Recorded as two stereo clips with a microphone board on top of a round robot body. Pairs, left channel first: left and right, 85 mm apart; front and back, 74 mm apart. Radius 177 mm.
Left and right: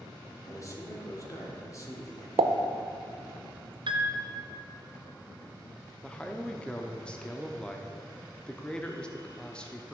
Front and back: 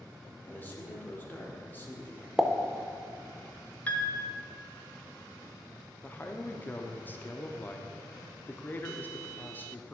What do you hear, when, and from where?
0.5 s a man speaking: 55° left, 2.0 m
2.4 s a pop: 95° right, 0.6 m
3.9 s a piano: 70° right, 1.0 m
6.0 s a man speaking: 25° left, 0.9 m